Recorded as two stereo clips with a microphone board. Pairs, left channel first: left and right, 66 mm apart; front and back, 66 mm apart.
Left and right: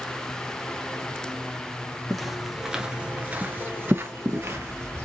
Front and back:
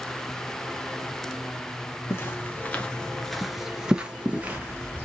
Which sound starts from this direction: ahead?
Footsteps, at 2.1 s.